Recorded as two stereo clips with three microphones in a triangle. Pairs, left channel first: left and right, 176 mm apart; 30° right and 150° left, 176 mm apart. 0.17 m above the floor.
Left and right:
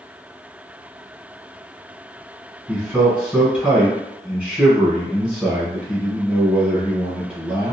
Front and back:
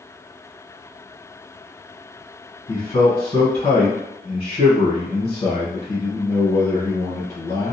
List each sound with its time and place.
2.7 s a man speaking: 10° right, 1.2 m